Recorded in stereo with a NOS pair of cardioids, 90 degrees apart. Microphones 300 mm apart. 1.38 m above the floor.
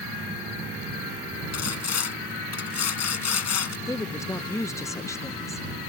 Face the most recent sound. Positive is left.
turn(degrees=10)